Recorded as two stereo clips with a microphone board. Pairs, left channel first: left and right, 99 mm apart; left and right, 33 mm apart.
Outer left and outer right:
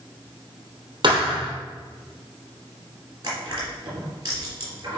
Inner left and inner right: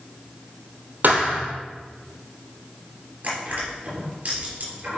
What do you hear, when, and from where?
1.0 s a thud: 55° right (ahead or behind), 2.5 m
3.2 s crushing: 40° right (ahead or behind), 3.5 m